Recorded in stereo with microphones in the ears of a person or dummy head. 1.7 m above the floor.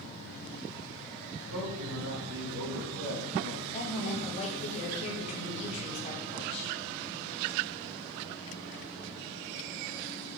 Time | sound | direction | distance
1.4 | a man speaking | 85° right | 2.5 m
3.7 | a woman speaking | 40° left (ahead or behind) | 1.9 m